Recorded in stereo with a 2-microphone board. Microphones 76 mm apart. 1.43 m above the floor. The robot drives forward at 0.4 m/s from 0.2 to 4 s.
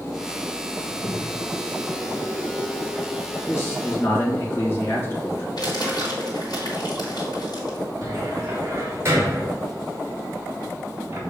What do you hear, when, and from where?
0.9 s a crack: 60° left (ahead or behind), 1.7 m; by 2.2 s 75° left (ahead or behind), 1.5 m
3.5 s a man speaking: 35° left (ahead or behind), 2 m; by 5.5 s 30° left (ahead or behind), 2 m
5.6 s crumpling: 60° left (ahead or behind), 3 m
8.0 s a cupboard door: 35° right (ahead or behind), 1.8 m